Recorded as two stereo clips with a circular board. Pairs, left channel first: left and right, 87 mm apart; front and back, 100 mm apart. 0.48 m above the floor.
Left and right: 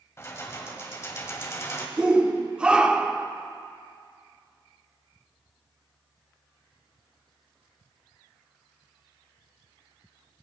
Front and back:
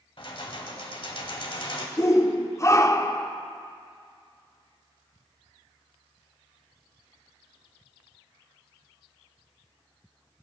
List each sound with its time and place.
0.2 s keys jangling: 30° left, 1.5 m
2.0 s a shout: 20° right, 0.7 m